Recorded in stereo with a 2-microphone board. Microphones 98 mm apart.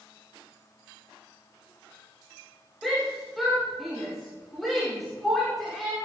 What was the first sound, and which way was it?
A shout, centre (ahead or behind).